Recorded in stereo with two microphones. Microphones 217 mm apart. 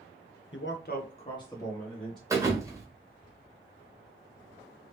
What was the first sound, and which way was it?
A man speaking, 65° left (ahead or behind).